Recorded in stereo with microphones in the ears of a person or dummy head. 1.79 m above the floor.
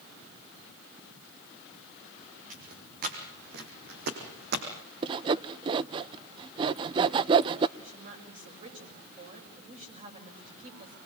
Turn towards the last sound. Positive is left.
turn(degrees=-40)  # may be behind; listen again after turning